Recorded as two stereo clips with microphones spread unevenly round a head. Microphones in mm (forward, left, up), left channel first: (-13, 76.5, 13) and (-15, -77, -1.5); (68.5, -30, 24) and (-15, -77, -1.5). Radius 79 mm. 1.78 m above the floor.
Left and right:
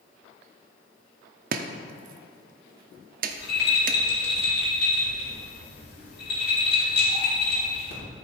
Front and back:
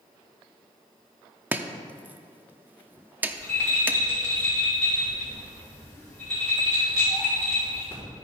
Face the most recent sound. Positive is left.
turn(degrees=105)